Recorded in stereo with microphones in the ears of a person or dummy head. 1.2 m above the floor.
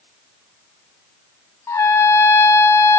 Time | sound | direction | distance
1.7 | a trumpet | 15° left (ahead or behind) | 0.6 m